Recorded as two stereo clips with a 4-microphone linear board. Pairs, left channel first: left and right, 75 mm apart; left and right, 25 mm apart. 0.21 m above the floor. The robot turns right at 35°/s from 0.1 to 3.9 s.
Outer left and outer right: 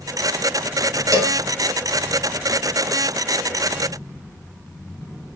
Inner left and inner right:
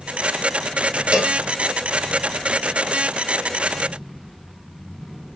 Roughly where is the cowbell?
Right.